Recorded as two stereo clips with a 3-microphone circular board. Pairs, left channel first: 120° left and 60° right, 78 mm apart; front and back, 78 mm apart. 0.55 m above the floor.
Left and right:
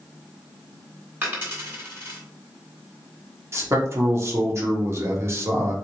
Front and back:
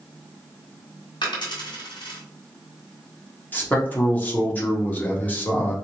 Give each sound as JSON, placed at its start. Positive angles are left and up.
{"t": 1.2, "sound": "a dropped coin", "azimuth_deg": 5, "distance_m": 1.5}
{"t": 3.5, "sound": "a man speaking", "azimuth_deg": -50, "distance_m": 1.0}